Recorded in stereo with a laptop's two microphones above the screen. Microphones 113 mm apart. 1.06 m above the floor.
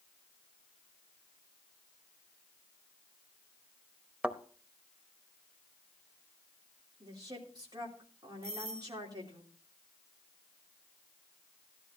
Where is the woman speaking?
35° right (ahead or behind), 3 m.